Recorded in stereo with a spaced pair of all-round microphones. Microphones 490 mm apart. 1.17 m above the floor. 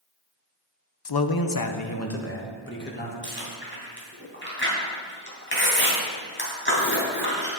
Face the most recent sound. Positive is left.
turn(degrees=20)  # may be behind; listen again after turning